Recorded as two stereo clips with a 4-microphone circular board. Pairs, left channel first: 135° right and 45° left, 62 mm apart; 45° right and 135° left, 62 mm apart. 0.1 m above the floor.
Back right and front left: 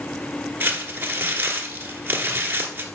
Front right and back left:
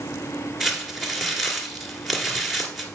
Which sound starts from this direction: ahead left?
Crumpling, at 0.6 s.